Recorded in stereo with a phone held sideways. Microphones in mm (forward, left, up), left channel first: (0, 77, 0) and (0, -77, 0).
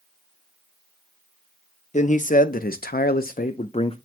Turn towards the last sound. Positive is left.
turn(degrees=35)  # may be behind; listen again after turning